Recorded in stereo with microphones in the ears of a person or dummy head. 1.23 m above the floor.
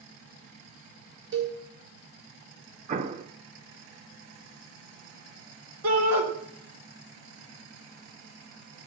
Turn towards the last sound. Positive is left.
turn(degrees=-85)